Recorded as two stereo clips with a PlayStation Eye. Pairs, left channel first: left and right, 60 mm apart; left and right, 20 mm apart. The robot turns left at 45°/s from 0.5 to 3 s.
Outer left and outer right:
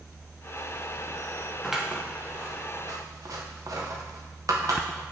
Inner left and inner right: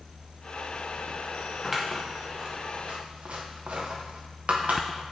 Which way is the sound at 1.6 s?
5° right (ahead or behind).